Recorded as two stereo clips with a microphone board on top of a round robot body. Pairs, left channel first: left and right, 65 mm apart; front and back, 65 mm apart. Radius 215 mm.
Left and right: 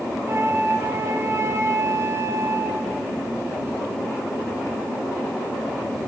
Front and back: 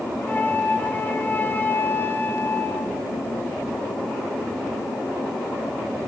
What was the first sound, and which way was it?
A flute, 55° right.